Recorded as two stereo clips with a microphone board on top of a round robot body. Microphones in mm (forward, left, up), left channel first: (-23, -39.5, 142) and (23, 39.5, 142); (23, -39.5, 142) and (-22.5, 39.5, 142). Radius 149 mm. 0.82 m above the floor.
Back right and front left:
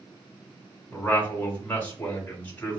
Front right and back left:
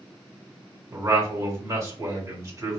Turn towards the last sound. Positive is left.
turn(degrees=170)